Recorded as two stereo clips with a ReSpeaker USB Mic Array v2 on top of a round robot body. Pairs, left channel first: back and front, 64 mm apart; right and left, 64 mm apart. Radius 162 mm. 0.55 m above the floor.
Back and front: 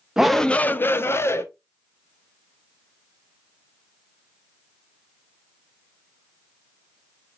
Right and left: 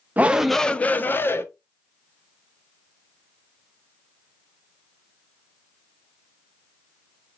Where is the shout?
70° left, 0.6 m; by 1.4 s 140° right, 1.1 m.